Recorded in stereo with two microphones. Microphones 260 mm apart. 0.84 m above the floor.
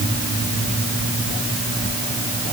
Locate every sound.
Only background noise.